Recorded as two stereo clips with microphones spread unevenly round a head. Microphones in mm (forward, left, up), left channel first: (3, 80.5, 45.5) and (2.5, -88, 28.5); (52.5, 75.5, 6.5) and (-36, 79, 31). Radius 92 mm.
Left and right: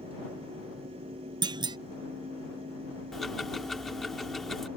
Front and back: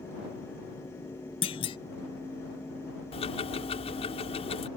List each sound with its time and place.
1.4 s a clunk: 25° right
3.1 s ticking: straight ahead